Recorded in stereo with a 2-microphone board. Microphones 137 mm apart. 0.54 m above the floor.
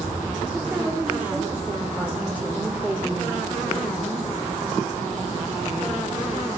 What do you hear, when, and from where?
0.5 s a woman speaking: 10° right (ahead or behind), 1.8 m